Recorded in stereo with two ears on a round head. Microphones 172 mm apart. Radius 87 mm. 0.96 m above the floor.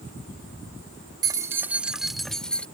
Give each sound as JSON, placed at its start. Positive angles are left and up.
{"t": 1.2, "sound": "keys jangling", "side_deg": -20}